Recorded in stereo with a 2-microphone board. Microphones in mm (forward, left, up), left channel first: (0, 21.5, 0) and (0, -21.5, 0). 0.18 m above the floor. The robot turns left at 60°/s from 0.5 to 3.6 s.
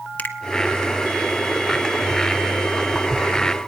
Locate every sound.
0.2 s a finger snap: 35° left (ahead or behind), 1.5 m